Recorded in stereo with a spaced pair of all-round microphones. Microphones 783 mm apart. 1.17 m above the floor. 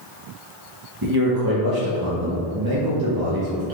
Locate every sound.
1.0 s a man speaking: 30° right (ahead or behind), 0.7 m